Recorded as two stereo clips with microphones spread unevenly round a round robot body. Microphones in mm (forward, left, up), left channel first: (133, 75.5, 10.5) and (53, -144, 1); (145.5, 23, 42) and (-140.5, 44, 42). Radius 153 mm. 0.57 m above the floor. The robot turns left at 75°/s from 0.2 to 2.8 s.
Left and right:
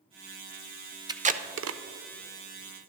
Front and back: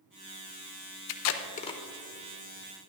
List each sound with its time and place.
1.1 s tape being pulled: 35° right, 0.6 m; by 1.8 s 85° right, 0.6 m